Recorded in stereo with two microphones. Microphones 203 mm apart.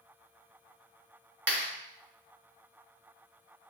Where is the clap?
70° right (ahead or behind), 2.5 m.